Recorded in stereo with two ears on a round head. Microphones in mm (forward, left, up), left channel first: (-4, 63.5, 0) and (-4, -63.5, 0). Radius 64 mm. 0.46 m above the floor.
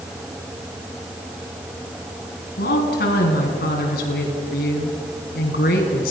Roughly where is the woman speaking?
Left.